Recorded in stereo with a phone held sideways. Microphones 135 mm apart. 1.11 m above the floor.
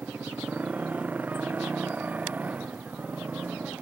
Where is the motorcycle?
10° right (ahead or behind).